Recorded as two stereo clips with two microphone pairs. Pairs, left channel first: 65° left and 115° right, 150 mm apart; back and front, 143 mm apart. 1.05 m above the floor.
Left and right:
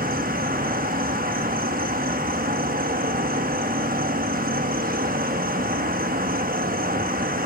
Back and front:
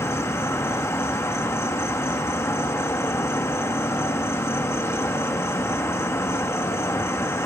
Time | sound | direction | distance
0.0 | an insect | 105° right | 0.8 m